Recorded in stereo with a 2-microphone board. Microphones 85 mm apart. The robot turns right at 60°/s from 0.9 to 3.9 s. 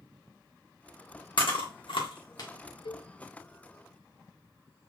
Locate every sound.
1.4 s chewing: 65° left (ahead or behind), 1.4 m; by 2.5 s 45° left (ahead or behind), 1.4 m
2.9 s a cowbell: 75° left (ahead or behind), 0.5 m; by 3.1 s 65° left (ahead or behind), 0.5 m